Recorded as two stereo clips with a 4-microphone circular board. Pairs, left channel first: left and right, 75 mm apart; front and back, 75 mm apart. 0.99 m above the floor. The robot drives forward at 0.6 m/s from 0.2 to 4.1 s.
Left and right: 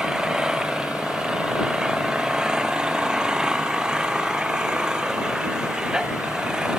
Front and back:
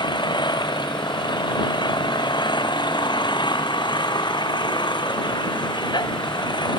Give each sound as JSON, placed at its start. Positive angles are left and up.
{"t": 0.0, "sound": "an engine running", "azimuth_deg": -10}